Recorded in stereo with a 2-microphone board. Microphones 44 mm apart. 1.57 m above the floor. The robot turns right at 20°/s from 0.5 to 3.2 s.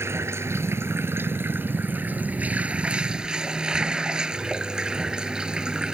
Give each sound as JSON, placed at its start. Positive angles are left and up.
{"t": 0.0, "sound": "running water", "azimuth_deg": -70}